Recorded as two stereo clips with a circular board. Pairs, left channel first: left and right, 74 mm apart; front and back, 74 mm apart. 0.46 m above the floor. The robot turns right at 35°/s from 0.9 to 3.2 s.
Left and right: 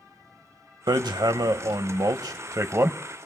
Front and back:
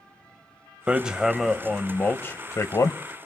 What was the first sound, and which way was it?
Hammering, 105° right.